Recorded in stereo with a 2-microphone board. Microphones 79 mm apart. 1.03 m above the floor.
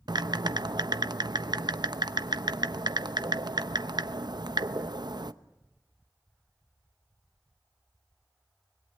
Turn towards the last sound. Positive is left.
turn(degrees=-60)  # may be behind; listen again after turning